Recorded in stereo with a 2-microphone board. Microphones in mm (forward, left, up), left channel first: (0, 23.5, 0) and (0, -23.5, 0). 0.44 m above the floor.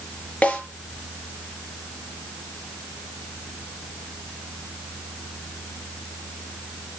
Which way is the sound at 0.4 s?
30° left (ahead or behind).